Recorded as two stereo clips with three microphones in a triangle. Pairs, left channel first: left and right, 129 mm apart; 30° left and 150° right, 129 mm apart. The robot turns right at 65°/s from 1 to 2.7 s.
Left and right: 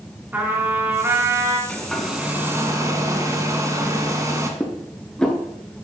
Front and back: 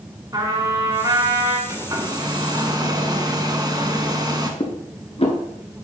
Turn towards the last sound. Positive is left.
turn(degrees=10)